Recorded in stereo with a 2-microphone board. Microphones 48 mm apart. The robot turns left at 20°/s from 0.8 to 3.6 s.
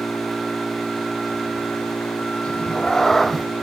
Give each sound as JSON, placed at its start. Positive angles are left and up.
{"t": 0.0, "sound": "an engine running", "azimuth_deg": 170}
{"t": 2.4, "sound": "a cat meowing", "side_deg": 20}